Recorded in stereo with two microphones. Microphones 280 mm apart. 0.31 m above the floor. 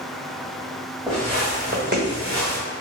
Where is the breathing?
I don't hear breathing.